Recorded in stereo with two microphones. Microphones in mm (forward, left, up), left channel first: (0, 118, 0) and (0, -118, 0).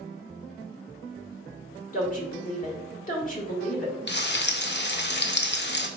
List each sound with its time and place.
1.9 s a woman speaking: 35° left (ahead or behind), 1.4 m
4.1 s frying: 50° left (ahead or behind), 0.5 m